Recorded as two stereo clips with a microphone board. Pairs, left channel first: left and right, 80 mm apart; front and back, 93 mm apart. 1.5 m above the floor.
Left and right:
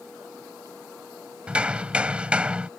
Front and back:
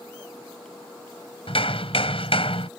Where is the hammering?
15° right.